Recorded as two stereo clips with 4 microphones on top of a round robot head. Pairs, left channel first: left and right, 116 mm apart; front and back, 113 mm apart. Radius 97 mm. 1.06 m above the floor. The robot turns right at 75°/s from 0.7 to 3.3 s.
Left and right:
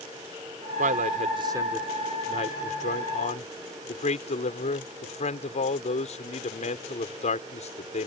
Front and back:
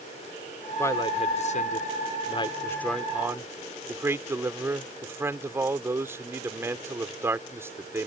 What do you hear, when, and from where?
0.8 s a man speaking: 80° right; by 8.1 s 110° left